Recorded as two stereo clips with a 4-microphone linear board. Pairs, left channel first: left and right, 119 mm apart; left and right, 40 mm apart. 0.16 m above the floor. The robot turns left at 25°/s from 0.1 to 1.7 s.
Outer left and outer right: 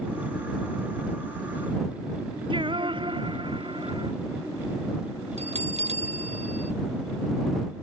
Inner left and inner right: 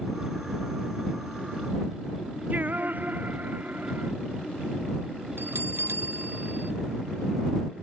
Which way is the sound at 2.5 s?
45° right (ahead or behind).